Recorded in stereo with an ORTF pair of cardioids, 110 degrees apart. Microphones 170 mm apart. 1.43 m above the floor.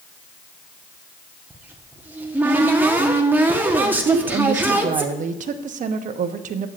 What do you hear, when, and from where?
1.5 s a cupboard door: 10° right, 1.2 m
4.0 s a woman speaking: 50° right, 1.0 m